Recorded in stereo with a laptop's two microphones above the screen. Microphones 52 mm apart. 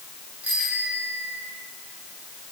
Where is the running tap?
I don't hear a running tap.